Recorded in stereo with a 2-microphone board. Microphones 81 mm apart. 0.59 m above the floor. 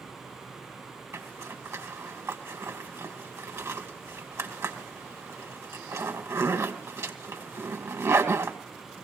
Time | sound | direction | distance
1.1 | a zipper | 30° right (ahead or behind) | 2.5 m